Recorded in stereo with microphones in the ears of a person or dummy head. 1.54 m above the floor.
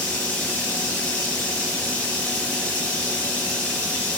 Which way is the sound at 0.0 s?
10° left (ahead or behind).